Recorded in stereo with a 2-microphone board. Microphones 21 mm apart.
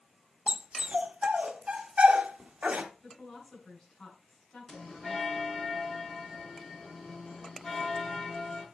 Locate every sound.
0.5 s a dog barking: 70° right (ahead or behind), 1.1 m
3.0 s a woman speaking: 35° left (ahead or behind), 6 m
4.7 s a bell: 20° left (ahead or behind), 6.5 m